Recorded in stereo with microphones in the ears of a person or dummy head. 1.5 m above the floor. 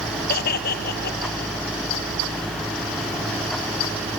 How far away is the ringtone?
No ringtone in this recording.